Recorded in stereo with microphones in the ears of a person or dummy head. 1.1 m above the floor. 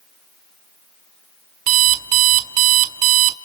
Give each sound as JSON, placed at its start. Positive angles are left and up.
{"t": 1.7, "sound": "an alarm clock", "side_deg": -40, "distance_m": 0.8}